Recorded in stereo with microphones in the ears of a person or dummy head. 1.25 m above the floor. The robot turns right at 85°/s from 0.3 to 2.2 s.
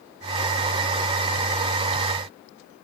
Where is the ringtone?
No ringtone in this recording.